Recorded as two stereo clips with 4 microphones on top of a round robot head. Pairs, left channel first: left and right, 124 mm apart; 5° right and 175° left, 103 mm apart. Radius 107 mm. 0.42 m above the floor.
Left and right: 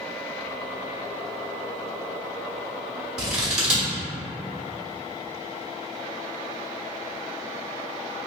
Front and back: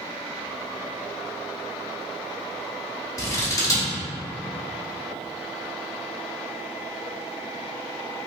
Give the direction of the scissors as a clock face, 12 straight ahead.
12 o'clock.